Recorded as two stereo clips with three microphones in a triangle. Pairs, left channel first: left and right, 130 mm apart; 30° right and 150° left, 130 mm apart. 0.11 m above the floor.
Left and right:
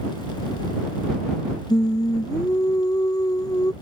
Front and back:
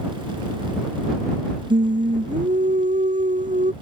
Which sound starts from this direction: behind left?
Singing, at 1.7 s.